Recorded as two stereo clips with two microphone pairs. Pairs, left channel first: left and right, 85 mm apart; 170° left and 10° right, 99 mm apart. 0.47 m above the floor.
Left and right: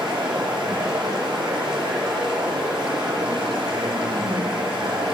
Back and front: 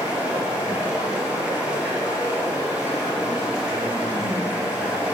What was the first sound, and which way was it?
Running water, 85° right.